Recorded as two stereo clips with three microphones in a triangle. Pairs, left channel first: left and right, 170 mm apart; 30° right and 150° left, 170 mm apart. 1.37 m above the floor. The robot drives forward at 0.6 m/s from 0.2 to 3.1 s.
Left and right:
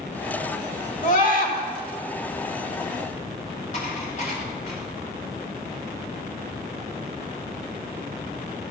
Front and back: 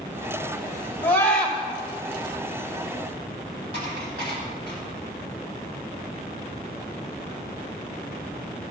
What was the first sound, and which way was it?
A scream, 50° left.